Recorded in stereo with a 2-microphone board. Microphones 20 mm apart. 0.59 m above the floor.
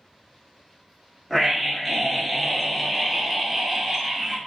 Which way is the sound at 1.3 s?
5° left (ahead or behind).